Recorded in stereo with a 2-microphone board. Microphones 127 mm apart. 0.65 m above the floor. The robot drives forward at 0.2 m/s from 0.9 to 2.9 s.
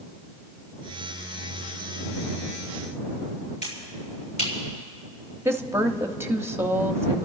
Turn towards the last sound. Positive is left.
turn(degrees=-20)  # may be behind; listen again after turning